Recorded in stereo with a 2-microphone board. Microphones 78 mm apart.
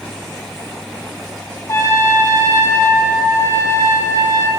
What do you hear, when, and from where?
1.7 s a trumpet: 40° left (ahead or behind), 0.7 m